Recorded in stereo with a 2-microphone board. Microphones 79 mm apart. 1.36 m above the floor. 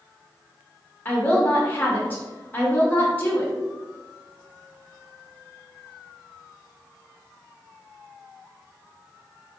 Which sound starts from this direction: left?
A woman speaking, at 1.1 s.